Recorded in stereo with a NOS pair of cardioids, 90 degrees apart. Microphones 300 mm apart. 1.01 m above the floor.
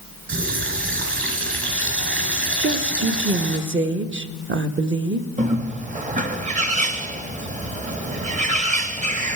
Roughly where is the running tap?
Ahead right.